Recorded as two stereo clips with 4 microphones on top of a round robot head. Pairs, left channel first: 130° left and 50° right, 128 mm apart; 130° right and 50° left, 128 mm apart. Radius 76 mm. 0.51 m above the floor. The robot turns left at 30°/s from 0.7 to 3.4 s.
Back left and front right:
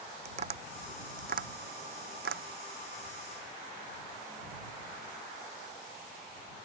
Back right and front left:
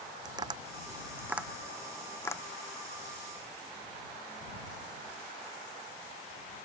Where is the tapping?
10° right; by 2.4 s 60° right.